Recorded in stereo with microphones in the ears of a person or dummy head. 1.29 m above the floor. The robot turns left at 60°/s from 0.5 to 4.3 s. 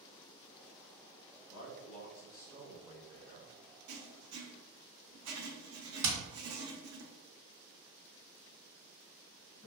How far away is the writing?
About 0.6 m.